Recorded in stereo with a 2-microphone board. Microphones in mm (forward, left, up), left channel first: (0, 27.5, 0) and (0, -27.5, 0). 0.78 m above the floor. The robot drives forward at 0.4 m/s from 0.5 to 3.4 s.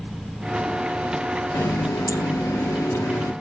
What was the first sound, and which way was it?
A running tap, 70° left (ahead or behind).